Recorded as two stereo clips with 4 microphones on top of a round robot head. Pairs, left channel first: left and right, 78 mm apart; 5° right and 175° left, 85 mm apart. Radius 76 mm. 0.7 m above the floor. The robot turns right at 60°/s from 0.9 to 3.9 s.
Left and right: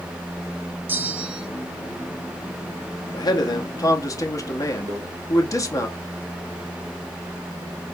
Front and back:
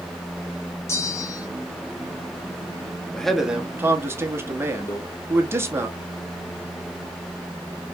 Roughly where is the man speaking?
Left.